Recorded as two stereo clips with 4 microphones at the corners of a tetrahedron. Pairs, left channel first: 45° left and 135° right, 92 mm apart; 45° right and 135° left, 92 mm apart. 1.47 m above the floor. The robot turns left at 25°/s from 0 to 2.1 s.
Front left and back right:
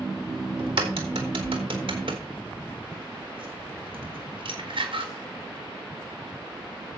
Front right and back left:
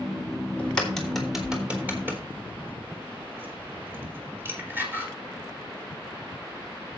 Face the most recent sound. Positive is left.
turn(degrees=-155)